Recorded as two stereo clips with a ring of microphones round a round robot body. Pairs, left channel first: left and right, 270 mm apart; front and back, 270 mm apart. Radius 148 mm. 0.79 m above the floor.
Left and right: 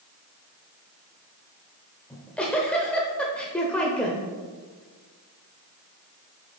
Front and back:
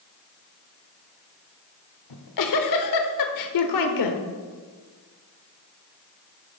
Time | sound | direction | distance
2.1 | a giggle | 5° left | 0.8 m